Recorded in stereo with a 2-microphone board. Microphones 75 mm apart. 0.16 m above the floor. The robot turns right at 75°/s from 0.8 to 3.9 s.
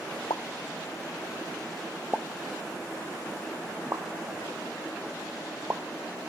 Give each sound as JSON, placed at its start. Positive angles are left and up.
{"t": 0.3, "sound": "a pop", "side_deg": 75, "distance_m": 0.8}